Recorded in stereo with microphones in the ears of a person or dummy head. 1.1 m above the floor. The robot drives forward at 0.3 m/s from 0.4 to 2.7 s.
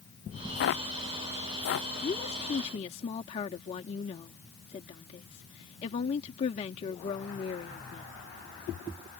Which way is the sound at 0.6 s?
65° left (ahead or behind).